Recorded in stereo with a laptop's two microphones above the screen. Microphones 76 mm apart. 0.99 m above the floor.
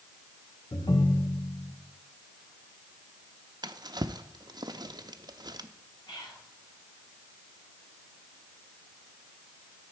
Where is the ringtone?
85° left, 0.8 m.